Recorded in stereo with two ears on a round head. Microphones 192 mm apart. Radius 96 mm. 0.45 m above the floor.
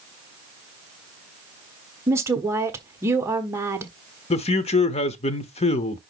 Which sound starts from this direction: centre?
A woman speaking, at 2.1 s.